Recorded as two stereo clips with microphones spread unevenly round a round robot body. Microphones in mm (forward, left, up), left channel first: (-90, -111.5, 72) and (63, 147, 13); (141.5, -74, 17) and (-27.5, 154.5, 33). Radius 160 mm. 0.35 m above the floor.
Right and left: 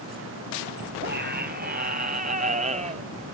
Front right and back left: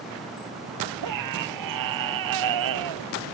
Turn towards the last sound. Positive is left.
turn(degrees=130)